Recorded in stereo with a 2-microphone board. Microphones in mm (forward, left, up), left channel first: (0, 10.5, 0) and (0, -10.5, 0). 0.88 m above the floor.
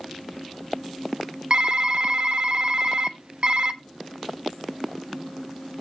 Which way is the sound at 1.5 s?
55° right (ahead or behind).